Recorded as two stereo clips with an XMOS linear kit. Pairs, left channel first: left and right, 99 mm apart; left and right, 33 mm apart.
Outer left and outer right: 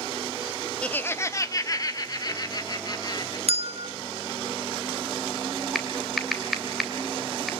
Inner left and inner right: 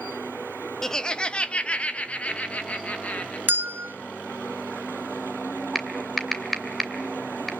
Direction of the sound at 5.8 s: Centre (ahead or behind).